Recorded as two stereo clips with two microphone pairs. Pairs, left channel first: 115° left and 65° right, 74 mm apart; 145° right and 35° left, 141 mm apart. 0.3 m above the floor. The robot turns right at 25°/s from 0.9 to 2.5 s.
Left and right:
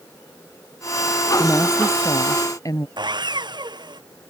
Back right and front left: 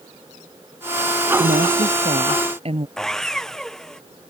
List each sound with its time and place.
1.4 s a woman speaking: 50° left; by 2.9 s 80° left
3.0 s sawing: 60° right